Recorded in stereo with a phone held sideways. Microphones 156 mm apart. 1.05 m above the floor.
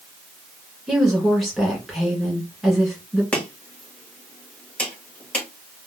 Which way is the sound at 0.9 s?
Centre (ahead or behind).